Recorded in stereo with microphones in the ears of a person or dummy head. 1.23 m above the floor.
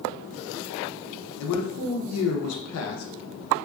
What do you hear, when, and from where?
1.4 s a man speaking: 80° left, 0.6 m